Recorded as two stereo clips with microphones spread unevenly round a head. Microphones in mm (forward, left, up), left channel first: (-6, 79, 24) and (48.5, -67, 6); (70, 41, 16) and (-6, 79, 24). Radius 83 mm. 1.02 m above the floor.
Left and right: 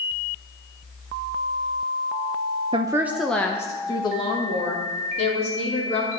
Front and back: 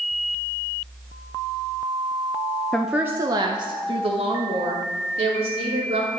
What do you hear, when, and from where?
2.7 s a woman speaking: 95° right, 0.6 m; by 6.1 s 165° left, 3 m